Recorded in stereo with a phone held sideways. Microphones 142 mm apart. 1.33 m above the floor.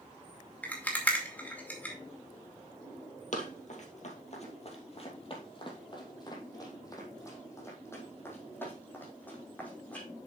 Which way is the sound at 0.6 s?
10° left (ahead or behind).